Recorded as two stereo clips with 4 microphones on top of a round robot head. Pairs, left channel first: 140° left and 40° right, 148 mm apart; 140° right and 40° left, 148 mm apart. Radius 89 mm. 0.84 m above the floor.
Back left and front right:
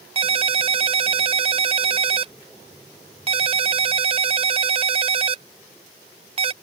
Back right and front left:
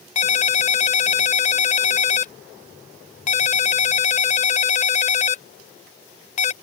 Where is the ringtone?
95° right.